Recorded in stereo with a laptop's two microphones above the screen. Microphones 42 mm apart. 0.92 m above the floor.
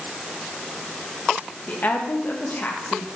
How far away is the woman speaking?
About 1.1 m.